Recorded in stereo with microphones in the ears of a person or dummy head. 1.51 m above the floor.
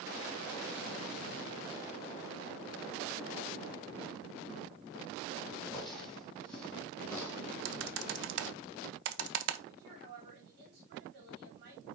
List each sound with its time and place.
5.7 s footsteps: 5° left (ahead or behind), 4.5 m; by 7.4 s 10° left (ahead or behind), 4 m
7.7 s typing on a keyboard: 70° right (ahead or behind), 1.0 m
9.7 s a woman speaking: 55° right (ahead or behind), 4 m